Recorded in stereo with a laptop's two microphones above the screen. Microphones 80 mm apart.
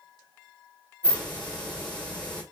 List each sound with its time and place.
1.0 s a hiss: 15° left (ahead or behind), 1.5 m